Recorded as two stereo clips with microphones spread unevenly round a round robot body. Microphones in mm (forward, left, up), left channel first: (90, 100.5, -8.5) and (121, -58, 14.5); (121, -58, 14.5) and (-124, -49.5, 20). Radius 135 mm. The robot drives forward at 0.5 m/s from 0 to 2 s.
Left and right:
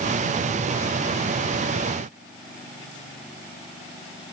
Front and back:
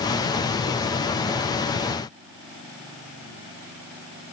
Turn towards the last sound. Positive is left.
No sound to turn to.